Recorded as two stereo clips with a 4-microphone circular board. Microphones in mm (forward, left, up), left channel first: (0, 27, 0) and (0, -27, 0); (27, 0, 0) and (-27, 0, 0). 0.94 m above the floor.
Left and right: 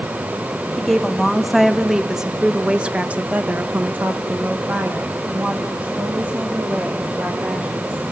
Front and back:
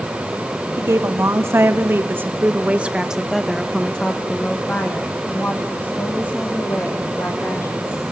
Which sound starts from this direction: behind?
A woman speaking, at 0.8 s.